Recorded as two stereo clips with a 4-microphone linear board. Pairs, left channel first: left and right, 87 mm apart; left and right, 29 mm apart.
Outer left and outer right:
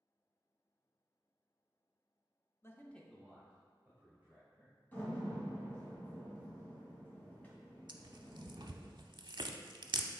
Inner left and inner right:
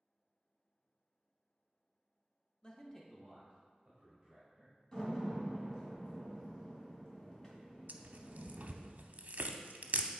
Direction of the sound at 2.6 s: 30° left (ahead or behind).